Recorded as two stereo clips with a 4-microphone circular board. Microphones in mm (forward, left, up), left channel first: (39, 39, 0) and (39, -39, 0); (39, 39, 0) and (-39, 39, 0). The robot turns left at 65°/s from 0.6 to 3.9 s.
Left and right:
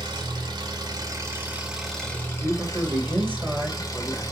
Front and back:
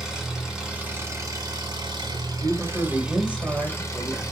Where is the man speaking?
65° right, 0.9 m; by 4.2 s 165° right, 0.9 m.